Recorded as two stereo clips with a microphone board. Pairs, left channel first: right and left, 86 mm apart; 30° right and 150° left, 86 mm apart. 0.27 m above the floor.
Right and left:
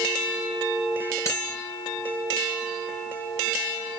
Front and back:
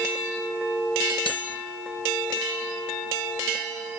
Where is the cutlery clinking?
40° right, 3 m.